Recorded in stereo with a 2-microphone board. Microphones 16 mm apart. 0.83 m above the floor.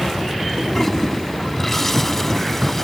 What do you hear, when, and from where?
0.7 s a toilet flushing: 25° left (ahead or behind)